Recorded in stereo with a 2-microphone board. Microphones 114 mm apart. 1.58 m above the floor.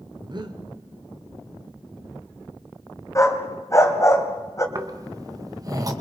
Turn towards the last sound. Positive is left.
turn(degrees=-30)  # may be behind; listen again after turning